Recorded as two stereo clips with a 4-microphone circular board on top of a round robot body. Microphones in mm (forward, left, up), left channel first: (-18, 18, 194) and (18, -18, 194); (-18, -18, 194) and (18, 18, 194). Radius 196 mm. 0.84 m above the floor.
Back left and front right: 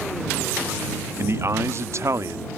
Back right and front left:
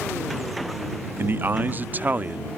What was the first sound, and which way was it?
A man speaking, 5° right.